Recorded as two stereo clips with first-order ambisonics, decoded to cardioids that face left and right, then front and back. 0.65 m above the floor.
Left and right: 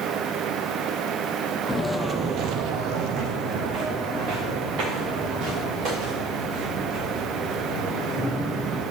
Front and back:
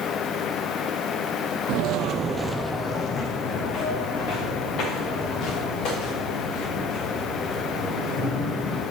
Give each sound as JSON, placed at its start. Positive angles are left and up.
{"t": 1.7, "sound": "footsteps", "azimuth_deg": 175, "distance_m": 1.1}